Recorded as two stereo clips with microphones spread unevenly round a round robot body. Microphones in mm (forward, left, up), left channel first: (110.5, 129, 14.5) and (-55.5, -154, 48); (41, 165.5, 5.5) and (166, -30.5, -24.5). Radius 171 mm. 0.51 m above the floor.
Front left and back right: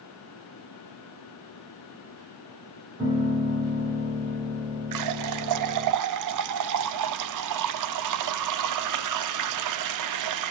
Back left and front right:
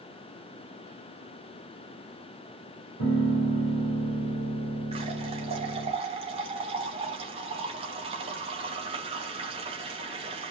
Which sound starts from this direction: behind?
A piano, at 3.0 s.